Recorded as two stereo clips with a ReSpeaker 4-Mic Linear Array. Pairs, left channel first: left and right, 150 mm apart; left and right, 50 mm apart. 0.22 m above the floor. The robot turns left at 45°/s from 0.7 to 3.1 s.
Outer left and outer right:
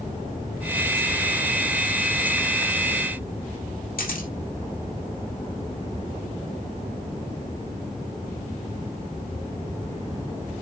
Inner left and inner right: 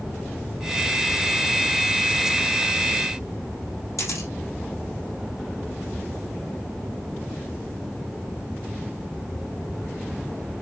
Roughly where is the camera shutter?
Left.